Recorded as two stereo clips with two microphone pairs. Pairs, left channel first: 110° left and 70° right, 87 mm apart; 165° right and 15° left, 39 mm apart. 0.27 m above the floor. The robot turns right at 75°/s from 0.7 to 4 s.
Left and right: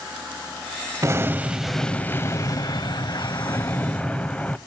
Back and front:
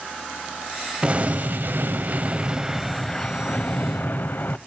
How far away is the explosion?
About 0.5 m.